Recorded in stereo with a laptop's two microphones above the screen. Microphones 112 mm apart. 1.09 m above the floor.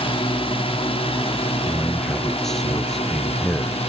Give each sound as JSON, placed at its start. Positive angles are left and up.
{"t": 0.0, "sound": "a drone", "side_deg": 55}
{"t": 1.6, "sound": "a man speaking", "side_deg": 5}